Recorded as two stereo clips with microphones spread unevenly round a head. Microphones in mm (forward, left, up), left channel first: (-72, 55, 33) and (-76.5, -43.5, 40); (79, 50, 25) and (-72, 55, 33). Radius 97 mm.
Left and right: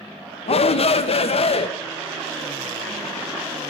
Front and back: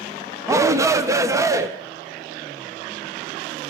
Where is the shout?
105° left, 1.4 m; by 1.7 s 110° left, 2 m.